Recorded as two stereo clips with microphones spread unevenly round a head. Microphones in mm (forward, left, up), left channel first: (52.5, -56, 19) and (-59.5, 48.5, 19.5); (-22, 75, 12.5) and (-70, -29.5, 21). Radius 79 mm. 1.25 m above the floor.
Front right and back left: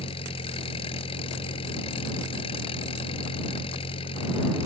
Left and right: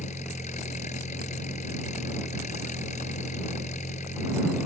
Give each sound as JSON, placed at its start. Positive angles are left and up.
{"t": 0.0, "sound": "an engine running", "azimuth_deg": 15}